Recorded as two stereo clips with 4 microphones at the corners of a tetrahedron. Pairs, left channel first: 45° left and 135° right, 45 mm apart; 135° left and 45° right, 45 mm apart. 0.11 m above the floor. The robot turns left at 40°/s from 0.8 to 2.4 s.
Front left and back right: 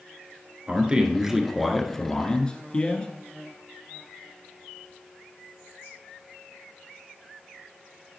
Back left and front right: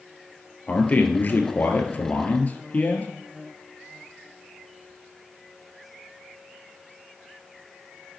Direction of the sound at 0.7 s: 170° left.